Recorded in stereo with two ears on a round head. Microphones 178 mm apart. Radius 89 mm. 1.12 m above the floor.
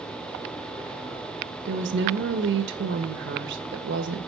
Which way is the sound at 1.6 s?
60° right (ahead or behind).